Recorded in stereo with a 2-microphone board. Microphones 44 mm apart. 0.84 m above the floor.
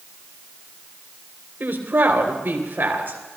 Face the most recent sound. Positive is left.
turn(degrees=-50)  # may be behind; listen again after turning